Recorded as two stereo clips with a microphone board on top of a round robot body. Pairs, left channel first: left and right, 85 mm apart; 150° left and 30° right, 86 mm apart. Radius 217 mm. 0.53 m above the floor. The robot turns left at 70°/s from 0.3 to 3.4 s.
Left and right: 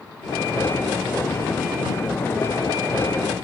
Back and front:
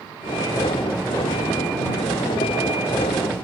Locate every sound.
Only background noise.